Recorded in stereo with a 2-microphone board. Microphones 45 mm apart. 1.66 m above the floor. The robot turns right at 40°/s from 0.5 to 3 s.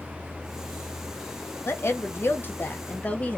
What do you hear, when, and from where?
1.6 s a woman speaking: 95° left, 0.9 m; by 3.4 s 150° left, 0.9 m